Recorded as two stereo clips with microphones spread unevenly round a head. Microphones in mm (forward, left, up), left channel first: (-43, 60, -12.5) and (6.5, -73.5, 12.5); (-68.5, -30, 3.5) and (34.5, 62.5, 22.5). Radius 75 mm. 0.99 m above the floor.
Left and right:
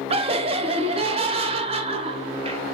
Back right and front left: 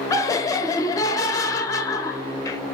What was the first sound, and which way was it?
Laughter, 105° right.